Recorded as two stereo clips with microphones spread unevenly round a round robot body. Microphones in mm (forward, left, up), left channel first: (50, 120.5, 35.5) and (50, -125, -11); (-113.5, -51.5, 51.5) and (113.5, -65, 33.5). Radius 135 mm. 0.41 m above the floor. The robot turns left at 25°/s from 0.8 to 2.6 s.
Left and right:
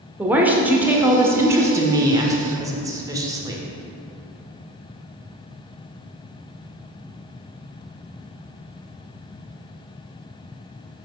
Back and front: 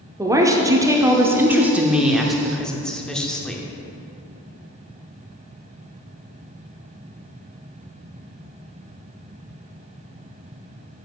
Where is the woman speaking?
45° right, 0.8 m; by 3.6 s 90° right, 0.8 m.